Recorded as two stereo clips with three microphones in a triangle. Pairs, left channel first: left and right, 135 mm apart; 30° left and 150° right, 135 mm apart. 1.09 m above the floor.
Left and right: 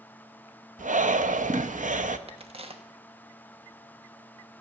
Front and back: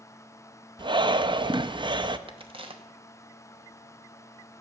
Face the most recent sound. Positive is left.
turn(degrees=-115)